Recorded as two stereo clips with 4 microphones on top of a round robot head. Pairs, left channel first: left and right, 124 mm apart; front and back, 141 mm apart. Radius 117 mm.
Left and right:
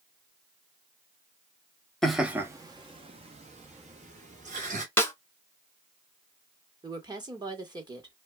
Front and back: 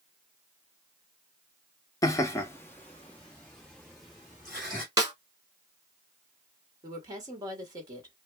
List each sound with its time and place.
2.0 s laughter: 10° left, 0.6 m; by 4.8 s 90° right, 1.7 m
5.0 s a snare drum: 145° left, 1.2 m
6.8 s a woman speaking: 130° right, 1.2 m